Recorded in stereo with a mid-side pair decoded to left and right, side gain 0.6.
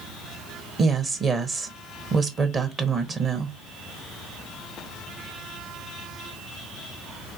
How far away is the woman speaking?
About 1.4 m.